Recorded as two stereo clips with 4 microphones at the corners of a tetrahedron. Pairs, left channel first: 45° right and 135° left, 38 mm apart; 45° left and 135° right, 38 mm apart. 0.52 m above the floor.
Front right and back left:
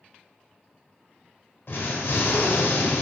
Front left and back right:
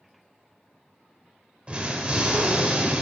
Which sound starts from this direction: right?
An explosion, at 1.7 s.